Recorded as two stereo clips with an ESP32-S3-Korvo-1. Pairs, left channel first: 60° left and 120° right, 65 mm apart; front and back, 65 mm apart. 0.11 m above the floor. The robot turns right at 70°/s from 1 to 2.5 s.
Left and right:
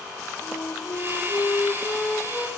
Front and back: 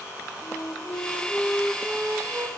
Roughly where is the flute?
Ahead left.